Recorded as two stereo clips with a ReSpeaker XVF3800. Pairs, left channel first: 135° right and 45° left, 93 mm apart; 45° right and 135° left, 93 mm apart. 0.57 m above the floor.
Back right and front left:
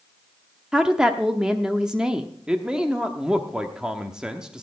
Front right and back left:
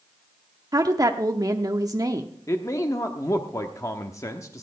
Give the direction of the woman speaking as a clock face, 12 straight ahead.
8 o'clock.